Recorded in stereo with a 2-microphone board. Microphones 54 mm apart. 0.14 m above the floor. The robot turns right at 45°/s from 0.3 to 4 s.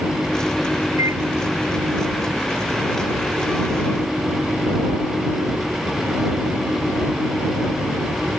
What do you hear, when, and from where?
1.0 s a microwave: 80° right; by 1.2 s 70° right (ahead or behind)